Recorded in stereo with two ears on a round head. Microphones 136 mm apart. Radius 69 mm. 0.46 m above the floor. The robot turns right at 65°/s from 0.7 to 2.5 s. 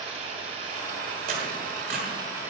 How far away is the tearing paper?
About 1.6 m.